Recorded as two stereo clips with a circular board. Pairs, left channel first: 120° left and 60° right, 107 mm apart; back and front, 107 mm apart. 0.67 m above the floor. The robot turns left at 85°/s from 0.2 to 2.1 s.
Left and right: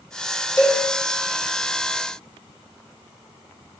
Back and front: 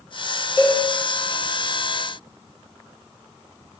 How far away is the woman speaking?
No woman speaking in this recording.